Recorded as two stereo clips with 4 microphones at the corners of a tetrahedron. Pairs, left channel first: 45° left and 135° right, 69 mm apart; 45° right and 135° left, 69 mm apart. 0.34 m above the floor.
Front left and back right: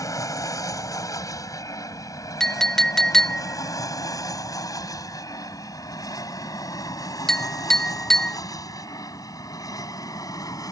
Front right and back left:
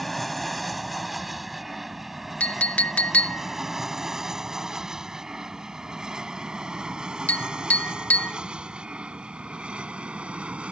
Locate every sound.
0.0 s an aircraft: 45° left; by 10.7 s 65° left
2.4 s a clink: 30° right